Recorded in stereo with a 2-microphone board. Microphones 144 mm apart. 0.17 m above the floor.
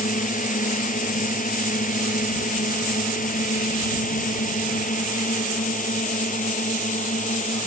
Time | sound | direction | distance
0.0 | a drone | 65° left (ahead or behind) | ?